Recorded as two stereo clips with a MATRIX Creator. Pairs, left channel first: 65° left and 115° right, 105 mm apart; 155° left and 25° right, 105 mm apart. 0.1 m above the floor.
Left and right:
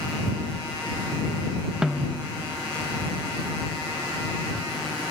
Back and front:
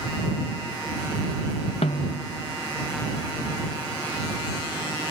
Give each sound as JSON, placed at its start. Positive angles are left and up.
{"t": 1.8, "sound": "a snare drum", "azimuth_deg": 165}